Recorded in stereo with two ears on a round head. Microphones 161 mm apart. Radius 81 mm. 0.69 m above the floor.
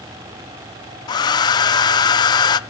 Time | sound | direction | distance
1.1 | a hair dryer | 25° left (ahead or behind) | 0.6 m